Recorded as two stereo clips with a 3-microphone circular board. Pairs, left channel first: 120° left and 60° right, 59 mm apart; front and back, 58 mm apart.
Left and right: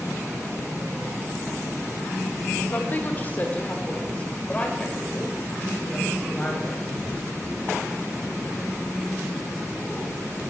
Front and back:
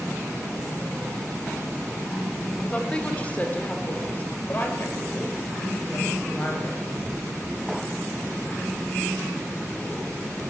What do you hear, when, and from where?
2.7 s a woman speaking: 70° left, 1.9 m; by 6.8 s 45° left, 5.5 m